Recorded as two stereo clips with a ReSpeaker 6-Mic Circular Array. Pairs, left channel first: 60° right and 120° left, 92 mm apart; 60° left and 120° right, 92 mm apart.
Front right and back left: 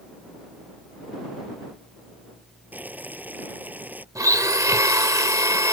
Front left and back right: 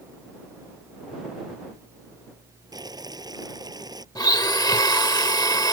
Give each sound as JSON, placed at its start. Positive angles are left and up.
{"t": 2.7, "sound": "boiling", "azimuth_deg": -165}
{"t": 4.2, "sound": "a blender", "azimuth_deg": 80}